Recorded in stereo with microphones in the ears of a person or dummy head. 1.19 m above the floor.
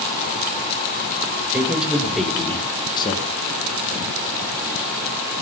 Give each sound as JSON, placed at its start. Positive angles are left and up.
{"t": 1.5, "sound": "a man speaking", "side_deg": -5, "distance_m": 3.5}